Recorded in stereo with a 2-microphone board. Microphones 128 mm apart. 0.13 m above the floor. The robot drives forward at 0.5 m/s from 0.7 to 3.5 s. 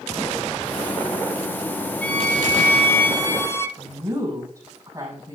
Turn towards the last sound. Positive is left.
turn(degrees=-20)  # may be behind; listen again after turning